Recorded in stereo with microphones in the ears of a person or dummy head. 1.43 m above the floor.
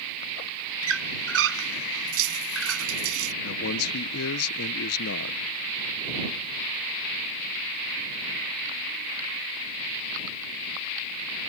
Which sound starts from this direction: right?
A squeak, at 0.8 s.